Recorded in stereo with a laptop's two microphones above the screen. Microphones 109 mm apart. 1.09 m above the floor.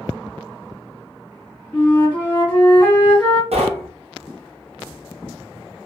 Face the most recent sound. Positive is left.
turn(degrees=-75)  # may be behind; listen again after turning